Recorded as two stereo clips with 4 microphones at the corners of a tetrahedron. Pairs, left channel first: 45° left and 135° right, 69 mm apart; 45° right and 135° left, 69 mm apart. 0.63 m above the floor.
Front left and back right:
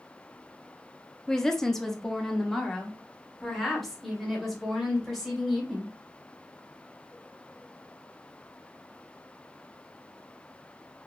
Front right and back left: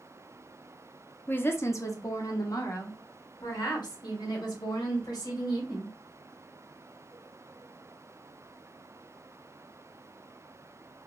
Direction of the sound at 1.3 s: 30° right.